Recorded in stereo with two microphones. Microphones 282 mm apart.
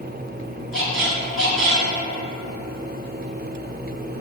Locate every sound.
0.7 s a squeak: 45° right (ahead or behind), 0.6 m